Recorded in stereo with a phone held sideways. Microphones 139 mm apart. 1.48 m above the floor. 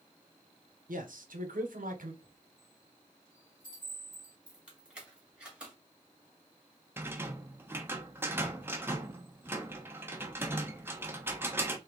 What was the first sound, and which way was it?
A man speaking, 80° right.